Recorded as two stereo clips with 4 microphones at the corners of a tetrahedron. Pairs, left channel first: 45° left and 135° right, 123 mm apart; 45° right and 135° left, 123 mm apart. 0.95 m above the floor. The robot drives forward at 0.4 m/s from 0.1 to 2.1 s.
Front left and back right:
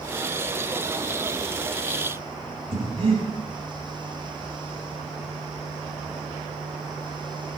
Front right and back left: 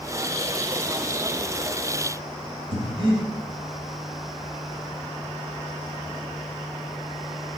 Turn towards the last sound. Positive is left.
turn(degrees=180)